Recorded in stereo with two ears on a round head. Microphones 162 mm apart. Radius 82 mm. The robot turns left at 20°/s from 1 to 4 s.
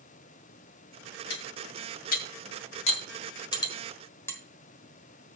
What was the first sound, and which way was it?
Cutlery clinking, 65° left (ahead or behind).